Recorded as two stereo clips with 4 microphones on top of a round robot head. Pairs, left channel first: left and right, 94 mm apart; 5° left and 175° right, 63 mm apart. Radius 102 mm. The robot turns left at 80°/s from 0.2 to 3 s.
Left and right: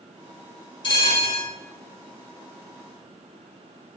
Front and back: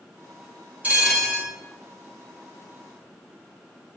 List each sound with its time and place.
0.8 s a bell: 120° left, 1.6 m; by 1.5 s 70° left, 1.6 m